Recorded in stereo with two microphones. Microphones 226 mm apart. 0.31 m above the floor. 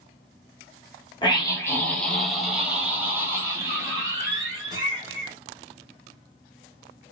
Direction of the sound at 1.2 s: 20° left (ahead or behind).